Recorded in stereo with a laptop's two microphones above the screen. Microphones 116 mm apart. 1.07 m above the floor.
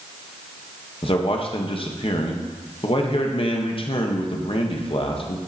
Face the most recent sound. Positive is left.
turn(degrees=50)  # may be behind; listen again after turning